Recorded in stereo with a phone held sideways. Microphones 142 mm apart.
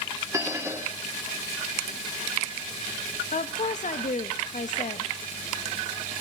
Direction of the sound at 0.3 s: 20° right (ahead or behind).